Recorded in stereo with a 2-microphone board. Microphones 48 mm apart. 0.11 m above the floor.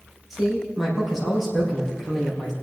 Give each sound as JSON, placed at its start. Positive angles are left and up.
{"t": 0.3, "sound": "a man speaking", "side_deg": -5, "distance_m": 4.5}